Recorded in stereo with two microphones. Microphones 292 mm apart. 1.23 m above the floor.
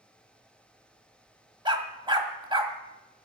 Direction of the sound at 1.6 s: 15° right (ahead or behind).